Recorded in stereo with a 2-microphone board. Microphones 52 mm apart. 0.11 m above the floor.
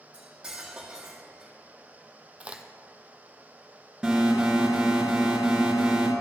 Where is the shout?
I don't hear a shout.